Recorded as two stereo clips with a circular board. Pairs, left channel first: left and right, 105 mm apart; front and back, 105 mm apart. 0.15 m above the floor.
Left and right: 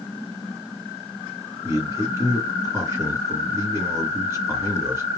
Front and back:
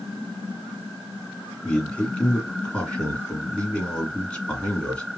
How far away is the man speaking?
About 1.8 m.